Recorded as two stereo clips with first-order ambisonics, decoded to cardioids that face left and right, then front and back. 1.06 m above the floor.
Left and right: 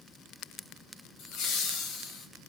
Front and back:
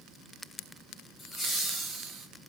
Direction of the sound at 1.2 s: 80° left.